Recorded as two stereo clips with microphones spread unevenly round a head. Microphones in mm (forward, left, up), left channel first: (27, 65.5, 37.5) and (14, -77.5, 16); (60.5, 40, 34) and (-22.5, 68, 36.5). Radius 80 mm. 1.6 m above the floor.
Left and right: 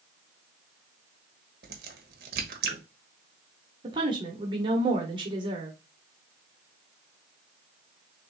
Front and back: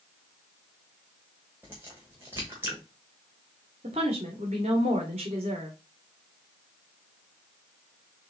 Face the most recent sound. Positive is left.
turn(degrees=-160)